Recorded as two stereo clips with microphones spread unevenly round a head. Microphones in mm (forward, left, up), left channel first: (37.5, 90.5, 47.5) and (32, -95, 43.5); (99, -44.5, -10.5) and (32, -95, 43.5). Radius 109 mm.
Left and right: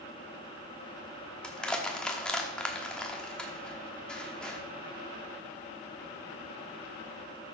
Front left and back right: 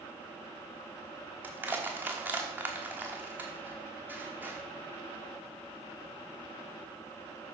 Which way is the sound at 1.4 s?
170° left.